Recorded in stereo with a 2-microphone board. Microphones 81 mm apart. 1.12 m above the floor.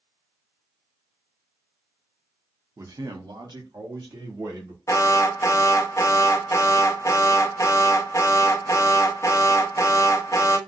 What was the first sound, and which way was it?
A man speaking, 40° right (ahead or behind).